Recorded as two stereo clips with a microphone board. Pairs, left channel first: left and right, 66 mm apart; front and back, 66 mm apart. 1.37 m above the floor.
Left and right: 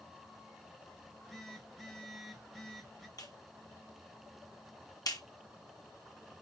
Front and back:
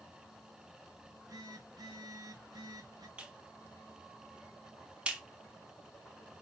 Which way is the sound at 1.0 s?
175° left.